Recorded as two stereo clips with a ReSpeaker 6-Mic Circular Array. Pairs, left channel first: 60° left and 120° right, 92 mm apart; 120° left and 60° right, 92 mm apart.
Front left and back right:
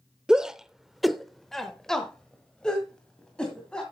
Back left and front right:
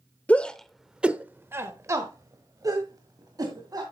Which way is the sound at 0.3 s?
165° left.